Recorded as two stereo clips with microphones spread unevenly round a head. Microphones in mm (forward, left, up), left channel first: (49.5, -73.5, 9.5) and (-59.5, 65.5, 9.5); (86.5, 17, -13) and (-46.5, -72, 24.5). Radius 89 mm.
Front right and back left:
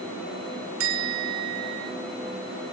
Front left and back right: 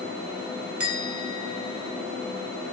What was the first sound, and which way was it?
A bell, 135° left.